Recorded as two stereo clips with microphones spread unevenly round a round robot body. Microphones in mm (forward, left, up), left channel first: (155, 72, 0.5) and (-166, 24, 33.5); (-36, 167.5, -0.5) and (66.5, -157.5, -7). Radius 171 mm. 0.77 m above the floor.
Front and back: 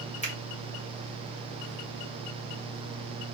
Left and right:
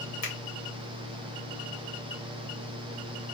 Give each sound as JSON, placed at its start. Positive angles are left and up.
{"t": 0.2, "sound": "a finger snap", "azimuth_deg": 75, "distance_m": 1.6}